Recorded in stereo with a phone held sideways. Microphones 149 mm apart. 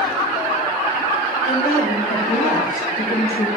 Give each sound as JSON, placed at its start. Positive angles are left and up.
{"t": 1.4, "sound": "a woman speaking", "side_deg": 75, "distance_m": 2.5}